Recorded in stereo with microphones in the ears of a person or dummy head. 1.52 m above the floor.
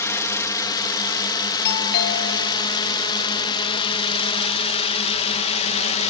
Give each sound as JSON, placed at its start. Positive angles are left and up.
{"t": 0.0, "sound": "a drone", "side_deg": 15}
{"t": 1.6, "sound": "a doorbell", "side_deg": 55}